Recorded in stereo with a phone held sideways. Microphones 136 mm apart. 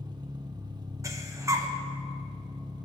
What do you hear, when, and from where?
0.0 s an engine running: 30° right (ahead or behind), 0.9 m
1.0 s breathing: 25° right (ahead or behind), 1.1 m